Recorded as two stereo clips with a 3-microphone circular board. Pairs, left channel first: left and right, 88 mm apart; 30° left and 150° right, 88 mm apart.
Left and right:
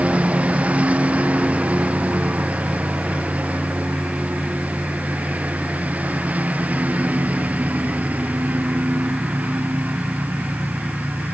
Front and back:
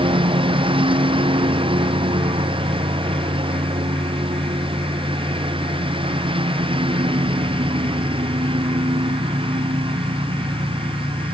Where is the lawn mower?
165° right.